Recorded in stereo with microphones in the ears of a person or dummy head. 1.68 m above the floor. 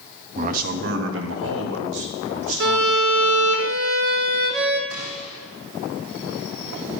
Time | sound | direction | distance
0.3 | a man speaking | 40° right (ahead or behind) | 0.9 m
2.6 | a violin | 55° right (ahead or behind) | 0.8 m
4.9 | a gunshot | 75° right (ahead or behind) | 3.5 m